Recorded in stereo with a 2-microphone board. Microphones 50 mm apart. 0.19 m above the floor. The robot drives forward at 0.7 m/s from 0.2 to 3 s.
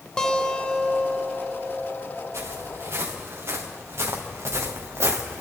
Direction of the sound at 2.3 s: 65° right (ahead or behind).